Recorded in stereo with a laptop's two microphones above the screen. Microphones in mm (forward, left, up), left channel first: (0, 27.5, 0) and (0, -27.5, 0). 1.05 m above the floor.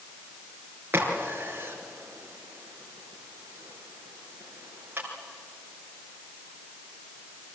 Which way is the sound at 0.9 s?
45° right (ahead or behind).